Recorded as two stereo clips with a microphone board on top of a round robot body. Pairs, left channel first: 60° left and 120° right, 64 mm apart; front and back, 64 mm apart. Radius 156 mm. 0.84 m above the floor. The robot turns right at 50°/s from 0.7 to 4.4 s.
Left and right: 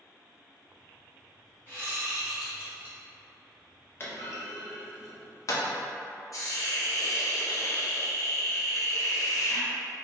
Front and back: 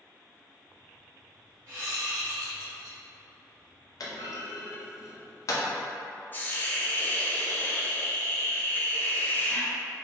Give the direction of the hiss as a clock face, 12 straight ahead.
10 o'clock.